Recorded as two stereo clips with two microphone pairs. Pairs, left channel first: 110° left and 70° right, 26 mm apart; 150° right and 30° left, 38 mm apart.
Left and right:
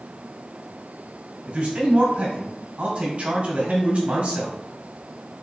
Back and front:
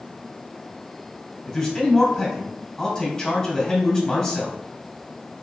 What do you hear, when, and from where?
1.5 s a man speaking: 95° right, 2 m